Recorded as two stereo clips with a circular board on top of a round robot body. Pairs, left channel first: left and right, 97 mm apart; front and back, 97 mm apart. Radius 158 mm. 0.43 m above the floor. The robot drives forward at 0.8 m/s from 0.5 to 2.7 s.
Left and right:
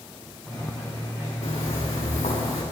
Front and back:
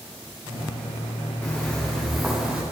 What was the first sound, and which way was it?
Footsteps, 70° left.